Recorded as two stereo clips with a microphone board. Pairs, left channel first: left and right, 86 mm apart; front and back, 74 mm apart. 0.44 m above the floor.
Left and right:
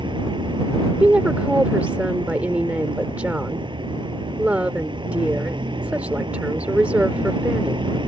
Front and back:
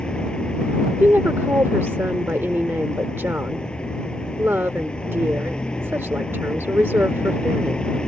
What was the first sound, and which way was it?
A vehicle, 80° right.